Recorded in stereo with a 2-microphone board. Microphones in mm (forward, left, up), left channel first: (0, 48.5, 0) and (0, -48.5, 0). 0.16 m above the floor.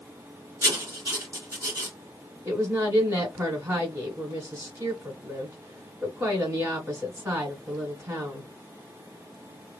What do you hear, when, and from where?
0.6 s writing: 35° right (ahead or behind), 1.3 m
2.5 s a woman speaking: 25° right (ahead or behind), 2.0 m